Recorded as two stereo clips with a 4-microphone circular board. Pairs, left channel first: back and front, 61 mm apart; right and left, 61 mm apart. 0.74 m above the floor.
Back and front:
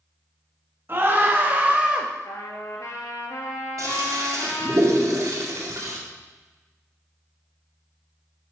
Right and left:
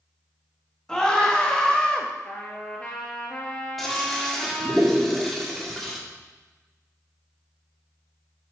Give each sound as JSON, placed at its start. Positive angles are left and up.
{"t": 0.9, "sound": "a scream", "azimuth_deg": -15, "distance_m": 1.4}
{"t": 2.2, "sound": "a trumpet", "azimuth_deg": -160, "distance_m": 1.9}
{"t": 3.8, "sound": "a toilet flushing", "azimuth_deg": 0, "distance_m": 1.8}